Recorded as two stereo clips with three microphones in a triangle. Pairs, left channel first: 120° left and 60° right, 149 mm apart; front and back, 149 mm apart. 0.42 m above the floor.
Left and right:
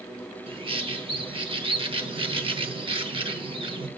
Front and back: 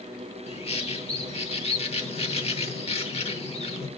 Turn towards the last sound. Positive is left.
turn(degrees=-20)